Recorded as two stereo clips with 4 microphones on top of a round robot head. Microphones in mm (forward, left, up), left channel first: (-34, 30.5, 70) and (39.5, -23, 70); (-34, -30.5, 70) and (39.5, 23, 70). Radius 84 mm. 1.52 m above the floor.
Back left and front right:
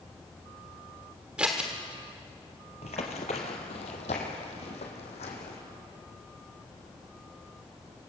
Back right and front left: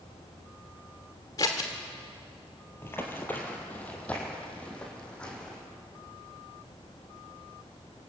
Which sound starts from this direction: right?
Scissors, at 1.4 s.